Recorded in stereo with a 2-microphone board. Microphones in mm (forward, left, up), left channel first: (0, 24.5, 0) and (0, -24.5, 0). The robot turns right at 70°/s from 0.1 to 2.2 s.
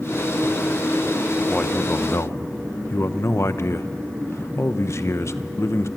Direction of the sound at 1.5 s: 20° left.